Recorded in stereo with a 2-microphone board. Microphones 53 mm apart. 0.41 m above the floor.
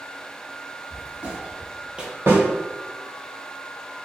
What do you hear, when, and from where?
0.9 s footsteps: 25° right (ahead or behind), 1.5 m; by 2.1 s 15° right (ahead or behind), 0.6 m
2.3 s a snare drum: 55° right (ahead or behind), 1.7 m